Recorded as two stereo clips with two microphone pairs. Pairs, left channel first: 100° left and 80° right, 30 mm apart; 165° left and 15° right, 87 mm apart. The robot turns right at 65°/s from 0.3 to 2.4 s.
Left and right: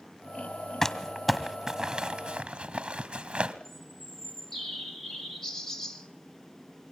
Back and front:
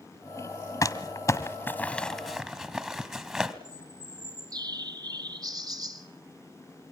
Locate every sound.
0.8 s crumpling: 155° left, 1.6 m; by 3.5 s 100° right, 1.6 m
3.6 s a bird: 30° left, 1.5 m